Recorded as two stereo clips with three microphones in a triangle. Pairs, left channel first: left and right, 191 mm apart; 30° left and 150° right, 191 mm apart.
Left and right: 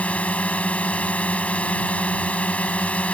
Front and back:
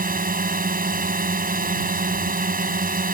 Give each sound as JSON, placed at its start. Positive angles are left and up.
{"t": 0.0, "sound": "a drone", "azimuth_deg": 175}